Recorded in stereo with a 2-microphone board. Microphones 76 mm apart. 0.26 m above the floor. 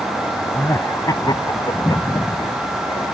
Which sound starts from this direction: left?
Laughter, at 0.5 s.